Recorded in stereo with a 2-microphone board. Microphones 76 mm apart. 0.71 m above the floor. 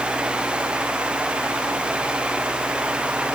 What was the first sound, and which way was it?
Only background noise.